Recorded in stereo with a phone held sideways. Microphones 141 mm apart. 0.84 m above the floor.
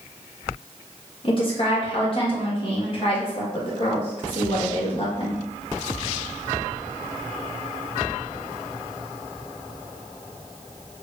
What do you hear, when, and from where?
1.2 s a woman speaking: 40° left (ahead or behind), 1.2 m